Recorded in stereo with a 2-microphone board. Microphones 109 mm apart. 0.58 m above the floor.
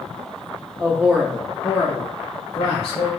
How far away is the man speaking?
About 0.7 m.